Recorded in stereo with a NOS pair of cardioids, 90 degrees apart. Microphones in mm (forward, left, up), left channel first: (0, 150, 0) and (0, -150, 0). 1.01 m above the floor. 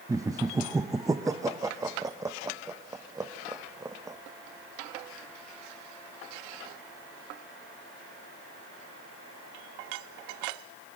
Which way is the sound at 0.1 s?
10° right.